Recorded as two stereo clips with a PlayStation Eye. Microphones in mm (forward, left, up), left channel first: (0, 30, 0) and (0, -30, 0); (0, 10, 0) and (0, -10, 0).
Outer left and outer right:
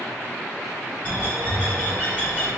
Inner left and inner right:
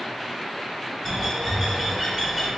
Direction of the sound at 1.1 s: 25° left (ahead or behind).